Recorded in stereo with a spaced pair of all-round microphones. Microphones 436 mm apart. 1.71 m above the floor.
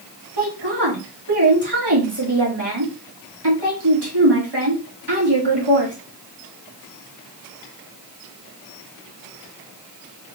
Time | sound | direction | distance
0.4 | a woman speaking | 70° right (ahead or behind) | 2 m